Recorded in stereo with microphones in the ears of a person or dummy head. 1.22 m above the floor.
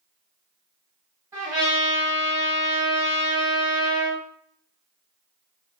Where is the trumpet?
15° right (ahead or behind), 1.7 m.